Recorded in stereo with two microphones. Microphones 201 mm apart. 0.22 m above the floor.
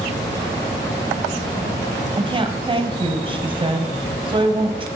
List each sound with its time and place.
2.2 s a woman speaking: 25° right (ahead or behind), 1.0 m